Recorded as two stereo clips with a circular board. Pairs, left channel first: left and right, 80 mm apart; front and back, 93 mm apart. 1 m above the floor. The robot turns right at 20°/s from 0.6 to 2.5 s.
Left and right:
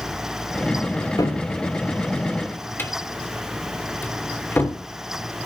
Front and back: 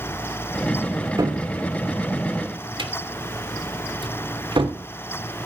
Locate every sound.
1.2 s a cupboard door: 125° left, 2.5 m; by 4.8 s 155° left, 2.5 m